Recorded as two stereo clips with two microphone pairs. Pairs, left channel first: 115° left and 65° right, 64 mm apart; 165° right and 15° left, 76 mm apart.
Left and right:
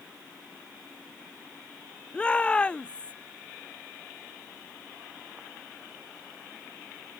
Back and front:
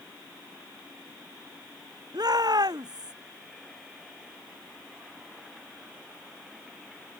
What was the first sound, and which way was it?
A shout, 40° left.